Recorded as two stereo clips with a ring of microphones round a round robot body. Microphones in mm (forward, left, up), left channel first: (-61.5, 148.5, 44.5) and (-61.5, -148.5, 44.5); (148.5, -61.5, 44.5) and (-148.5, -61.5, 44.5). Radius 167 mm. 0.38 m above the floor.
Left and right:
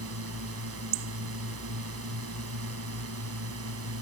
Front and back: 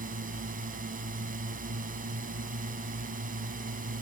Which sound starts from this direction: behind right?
A drone, at 0.0 s.